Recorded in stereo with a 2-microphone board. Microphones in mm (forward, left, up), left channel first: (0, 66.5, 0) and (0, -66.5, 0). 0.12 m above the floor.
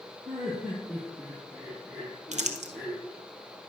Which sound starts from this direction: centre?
Laughter, at 0.2 s.